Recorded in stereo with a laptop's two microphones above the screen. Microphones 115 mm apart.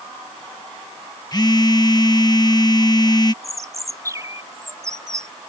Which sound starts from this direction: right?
A bird, at 3.4 s.